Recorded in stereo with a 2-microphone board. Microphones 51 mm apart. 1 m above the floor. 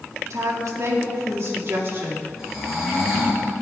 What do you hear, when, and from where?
0.3 s a woman speaking: 70° right (ahead or behind), 1.8 m; by 2.3 s 45° right (ahead or behind), 2 m
2.4 s snoring: 10° right (ahead or behind), 4 m